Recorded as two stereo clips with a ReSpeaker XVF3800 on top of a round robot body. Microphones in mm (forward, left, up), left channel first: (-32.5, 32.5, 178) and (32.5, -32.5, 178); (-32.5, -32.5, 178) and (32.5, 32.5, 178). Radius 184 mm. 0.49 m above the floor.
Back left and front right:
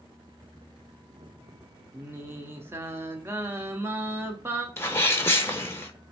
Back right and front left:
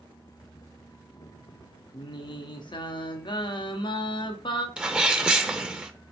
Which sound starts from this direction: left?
A sneeze, at 4.8 s.